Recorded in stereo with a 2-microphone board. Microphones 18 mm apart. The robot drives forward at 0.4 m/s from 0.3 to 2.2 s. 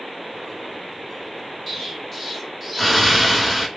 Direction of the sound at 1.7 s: 5° left (ahead or behind).